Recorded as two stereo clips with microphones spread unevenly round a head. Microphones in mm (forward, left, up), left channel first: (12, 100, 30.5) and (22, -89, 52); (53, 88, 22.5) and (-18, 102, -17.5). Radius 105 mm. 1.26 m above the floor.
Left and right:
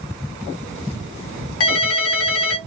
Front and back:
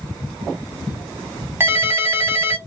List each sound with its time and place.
1.6 s a ringtone: 110° left, 1.4 m